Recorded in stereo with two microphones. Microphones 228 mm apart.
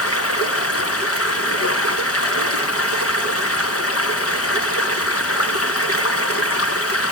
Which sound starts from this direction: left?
Running water, at 0.0 s.